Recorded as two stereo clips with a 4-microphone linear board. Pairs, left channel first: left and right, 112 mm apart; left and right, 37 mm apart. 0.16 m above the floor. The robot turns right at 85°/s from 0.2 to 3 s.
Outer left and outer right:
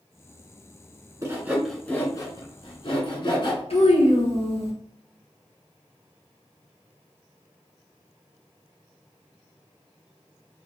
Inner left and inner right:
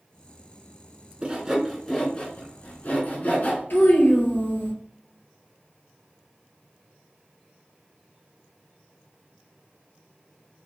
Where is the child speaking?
65° left (ahead or behind), 1.5 m.